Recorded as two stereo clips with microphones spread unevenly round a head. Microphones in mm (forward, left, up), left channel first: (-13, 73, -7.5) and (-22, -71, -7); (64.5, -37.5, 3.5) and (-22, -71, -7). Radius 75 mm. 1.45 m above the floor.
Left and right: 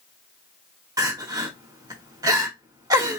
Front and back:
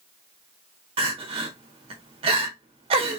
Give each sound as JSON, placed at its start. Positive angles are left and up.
{"t": 1.0, "sound": "crying", "azimuth_deg": -155, "distance_m": 1.1}